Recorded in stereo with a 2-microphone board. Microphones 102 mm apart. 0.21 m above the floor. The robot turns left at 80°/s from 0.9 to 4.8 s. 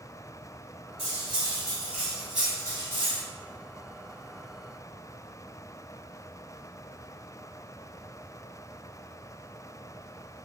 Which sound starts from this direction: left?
Cutlery clinking, at 1.0 s.